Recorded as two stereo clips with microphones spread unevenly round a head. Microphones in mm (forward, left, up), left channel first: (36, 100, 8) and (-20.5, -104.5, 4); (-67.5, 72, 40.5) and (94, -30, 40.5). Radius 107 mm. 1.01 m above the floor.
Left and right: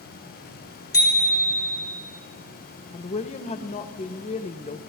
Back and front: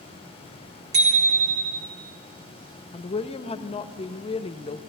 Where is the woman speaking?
115° left, 0.6 m.